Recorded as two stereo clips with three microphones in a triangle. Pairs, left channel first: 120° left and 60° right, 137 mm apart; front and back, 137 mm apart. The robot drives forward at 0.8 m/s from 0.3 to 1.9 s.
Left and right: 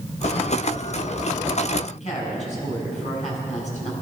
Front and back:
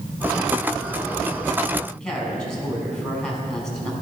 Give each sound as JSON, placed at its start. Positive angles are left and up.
{"t": 1.9, "sound": "a woman speaking", "azimuth_deg": 85, "distance_m": 4.0}